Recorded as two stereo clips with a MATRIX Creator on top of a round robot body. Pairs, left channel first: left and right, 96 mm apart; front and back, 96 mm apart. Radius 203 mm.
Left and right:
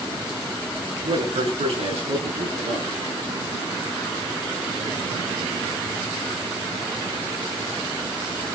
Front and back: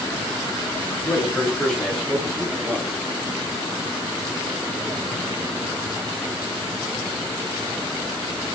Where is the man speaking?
80° right, 9.5 m; by 3.0 s 85° right, 10.5 m.